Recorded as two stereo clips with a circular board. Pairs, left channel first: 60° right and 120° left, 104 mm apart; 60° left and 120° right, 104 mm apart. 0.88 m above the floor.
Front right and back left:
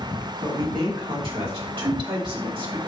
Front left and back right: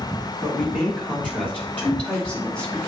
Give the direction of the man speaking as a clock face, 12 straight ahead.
7 o'clock.